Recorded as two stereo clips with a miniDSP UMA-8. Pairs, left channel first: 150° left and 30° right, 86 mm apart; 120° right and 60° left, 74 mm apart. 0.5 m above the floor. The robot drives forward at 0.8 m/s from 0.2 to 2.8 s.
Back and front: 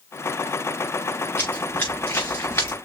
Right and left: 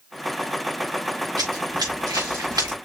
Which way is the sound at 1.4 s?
90° left.